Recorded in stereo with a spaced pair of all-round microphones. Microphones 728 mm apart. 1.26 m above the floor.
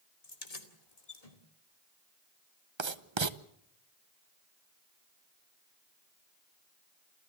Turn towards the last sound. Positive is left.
turn(degrees=-40)  # may be behind; listen again after turning